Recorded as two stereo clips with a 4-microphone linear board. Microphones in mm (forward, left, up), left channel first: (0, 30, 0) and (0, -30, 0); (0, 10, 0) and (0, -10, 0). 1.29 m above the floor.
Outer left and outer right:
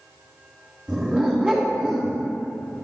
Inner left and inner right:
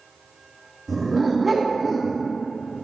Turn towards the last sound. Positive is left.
turn(degrees=-20)  # may be behind; listen again after turning